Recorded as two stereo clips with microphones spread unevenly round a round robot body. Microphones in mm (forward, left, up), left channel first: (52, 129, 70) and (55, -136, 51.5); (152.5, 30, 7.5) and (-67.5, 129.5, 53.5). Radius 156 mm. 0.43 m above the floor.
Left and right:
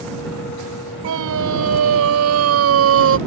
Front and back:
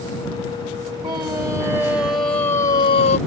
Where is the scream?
125° right; by 3.2 s 75° right.